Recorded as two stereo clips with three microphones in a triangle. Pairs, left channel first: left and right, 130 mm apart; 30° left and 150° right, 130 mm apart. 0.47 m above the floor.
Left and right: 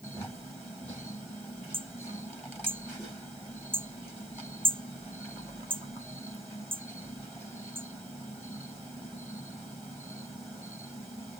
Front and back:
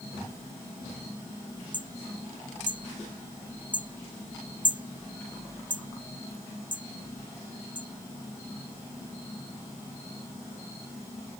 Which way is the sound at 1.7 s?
135° right.